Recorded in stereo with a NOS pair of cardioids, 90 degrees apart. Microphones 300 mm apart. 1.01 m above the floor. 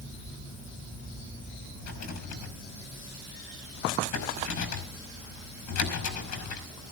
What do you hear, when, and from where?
1.8 s a rattle: 70° left, 5.5 m